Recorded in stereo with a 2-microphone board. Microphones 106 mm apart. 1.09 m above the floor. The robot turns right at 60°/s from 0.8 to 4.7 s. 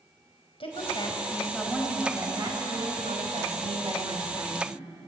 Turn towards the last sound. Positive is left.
turn(degrees=-5)